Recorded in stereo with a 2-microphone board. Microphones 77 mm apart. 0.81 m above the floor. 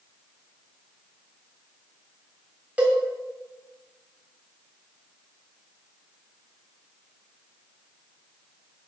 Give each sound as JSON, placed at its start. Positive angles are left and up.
{"t": 2.8, "sound": "a cowbell", "side_deg": -20, "distance_m": 1.3}